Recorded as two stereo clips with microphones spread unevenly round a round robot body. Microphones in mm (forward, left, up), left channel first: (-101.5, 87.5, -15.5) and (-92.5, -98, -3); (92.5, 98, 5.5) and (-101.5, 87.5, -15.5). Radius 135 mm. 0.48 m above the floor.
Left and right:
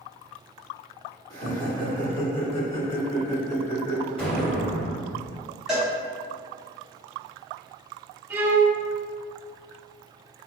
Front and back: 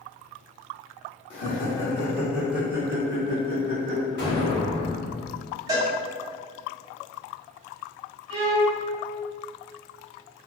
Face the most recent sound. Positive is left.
turn(degrees=-165)